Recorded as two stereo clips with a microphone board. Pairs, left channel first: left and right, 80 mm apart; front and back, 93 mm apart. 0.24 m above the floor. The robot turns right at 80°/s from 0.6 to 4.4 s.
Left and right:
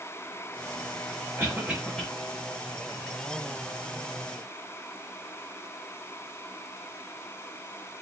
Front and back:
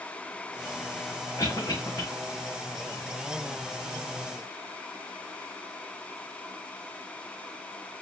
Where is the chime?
No chime in this recording.